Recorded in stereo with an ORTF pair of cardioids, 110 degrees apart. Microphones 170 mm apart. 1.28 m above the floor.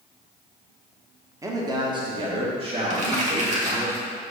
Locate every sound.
1.4 s a man speaking: 20° right, 1.0 m; by 3.9 s 40° right, 2.5 m
2.9 s crumpling: 45° right, 1.6 m